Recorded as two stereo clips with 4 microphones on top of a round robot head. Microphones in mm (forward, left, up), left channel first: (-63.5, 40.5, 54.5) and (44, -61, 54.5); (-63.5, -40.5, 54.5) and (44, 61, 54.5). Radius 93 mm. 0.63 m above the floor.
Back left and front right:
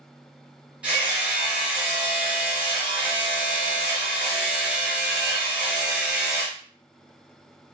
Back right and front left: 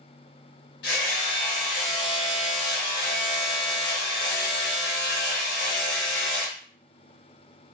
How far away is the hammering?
About 1.2 m.